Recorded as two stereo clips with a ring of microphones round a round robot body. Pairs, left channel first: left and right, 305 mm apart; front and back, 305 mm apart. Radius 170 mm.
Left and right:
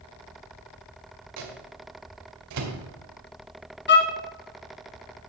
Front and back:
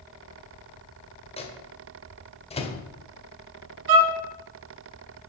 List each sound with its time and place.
1.4 s a microwave: 70° right, 1.8 m
3.9 s a violin: 145° left, 1.2 m